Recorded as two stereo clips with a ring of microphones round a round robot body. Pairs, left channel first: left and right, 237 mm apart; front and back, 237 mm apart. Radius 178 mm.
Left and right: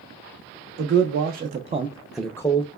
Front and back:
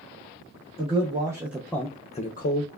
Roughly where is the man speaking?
Behind right.